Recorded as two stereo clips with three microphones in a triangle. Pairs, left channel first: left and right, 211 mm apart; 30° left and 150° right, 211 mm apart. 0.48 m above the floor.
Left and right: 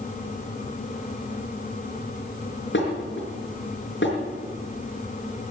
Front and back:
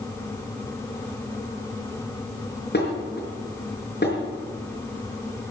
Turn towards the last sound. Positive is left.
turn(degrees=65)